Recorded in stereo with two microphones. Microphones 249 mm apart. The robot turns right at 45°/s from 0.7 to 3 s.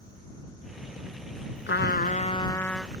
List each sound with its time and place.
1.7 s a trumpet: 125° left; by 2.9 s 175° right